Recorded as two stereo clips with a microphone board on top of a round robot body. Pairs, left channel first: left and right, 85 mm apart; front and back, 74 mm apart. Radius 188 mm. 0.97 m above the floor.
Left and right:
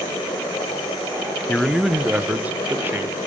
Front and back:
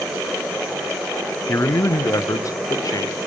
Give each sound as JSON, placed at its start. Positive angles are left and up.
{"t": 1.5, "sound": "a man speaking", "azimuth_deg": 10, "distance_m": 0.8}